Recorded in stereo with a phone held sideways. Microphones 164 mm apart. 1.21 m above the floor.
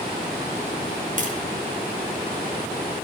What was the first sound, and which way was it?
Tapping, 55° right (ahead or behind).